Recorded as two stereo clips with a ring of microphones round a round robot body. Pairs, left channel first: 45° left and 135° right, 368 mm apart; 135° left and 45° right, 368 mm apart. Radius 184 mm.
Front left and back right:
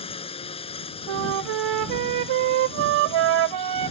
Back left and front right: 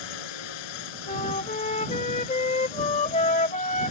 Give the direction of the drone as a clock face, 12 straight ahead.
8 o'clock.